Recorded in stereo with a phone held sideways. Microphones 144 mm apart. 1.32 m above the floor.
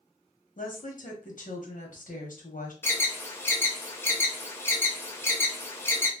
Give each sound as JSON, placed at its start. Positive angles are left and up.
{"t": 0.6, "sound": "a woman speaking", "side_deg": 70, "distance_m": 1.1}
{"t": 2.8, "sound": "an alarm", "side_deg": 15, "distance_m": 0.6}